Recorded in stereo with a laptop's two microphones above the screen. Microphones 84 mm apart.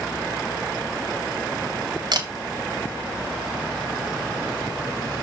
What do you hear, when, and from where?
2.1 s a camera shutter: 60° right (ahead or behind), 1.6 m